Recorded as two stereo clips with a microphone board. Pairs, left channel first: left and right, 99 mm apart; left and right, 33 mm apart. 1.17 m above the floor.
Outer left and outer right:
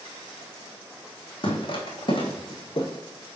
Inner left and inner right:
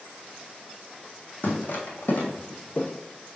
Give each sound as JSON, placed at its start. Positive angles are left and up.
{"t": 1.4, "sound": "footsteps", "side_deg": 50, "distance_m": 2.5}